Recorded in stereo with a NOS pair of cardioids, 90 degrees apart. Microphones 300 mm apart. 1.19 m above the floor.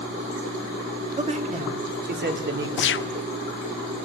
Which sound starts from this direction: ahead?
A man speaking, at 1.2 s.